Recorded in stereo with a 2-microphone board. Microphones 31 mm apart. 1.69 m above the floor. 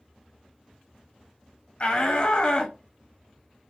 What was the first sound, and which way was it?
A shout, 35° left (ahead or behind).